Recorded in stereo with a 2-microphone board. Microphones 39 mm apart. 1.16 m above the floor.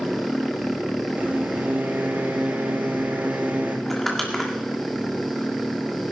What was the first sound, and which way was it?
A microwave, 45° right (ahead or behind).